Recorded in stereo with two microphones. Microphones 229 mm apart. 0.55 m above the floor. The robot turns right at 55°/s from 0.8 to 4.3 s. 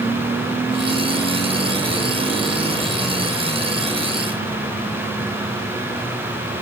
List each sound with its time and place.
Only background noise.